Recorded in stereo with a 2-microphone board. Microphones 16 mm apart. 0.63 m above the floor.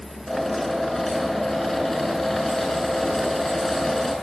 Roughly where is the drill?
Left.